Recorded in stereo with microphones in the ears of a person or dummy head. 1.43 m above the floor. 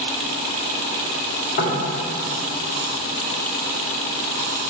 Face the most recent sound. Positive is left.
turn(degrees=75)  # may be behind; listen again after turning